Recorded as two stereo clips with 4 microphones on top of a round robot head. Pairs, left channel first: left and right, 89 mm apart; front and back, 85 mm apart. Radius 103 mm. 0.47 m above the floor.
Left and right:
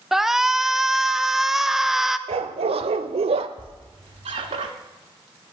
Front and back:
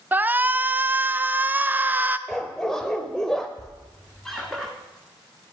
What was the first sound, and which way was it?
A shout, 170° right.